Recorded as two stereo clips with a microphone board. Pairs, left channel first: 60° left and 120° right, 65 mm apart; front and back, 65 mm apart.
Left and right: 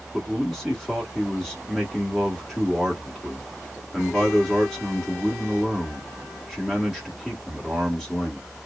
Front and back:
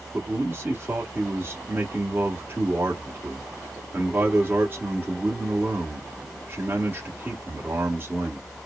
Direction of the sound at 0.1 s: 165° left.